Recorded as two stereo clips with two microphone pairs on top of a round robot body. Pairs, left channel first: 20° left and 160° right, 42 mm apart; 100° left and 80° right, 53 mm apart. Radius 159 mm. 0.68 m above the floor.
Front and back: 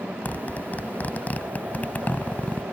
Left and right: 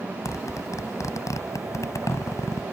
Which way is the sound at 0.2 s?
75° left.